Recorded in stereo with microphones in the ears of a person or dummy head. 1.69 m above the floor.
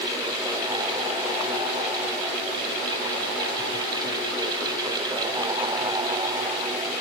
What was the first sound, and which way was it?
Only background noise.